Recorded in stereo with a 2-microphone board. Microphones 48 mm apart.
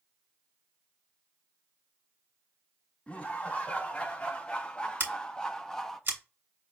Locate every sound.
3.1 s laughter: 25° left (ahead or behind), 2 m; by 6.0 s 5° left (ahead or behind), 0.7 m
5.0 s scissors: 55° right (ahead or behind), 1.5 m